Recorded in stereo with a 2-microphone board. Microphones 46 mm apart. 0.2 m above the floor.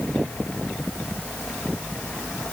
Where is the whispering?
I don't hear whispering.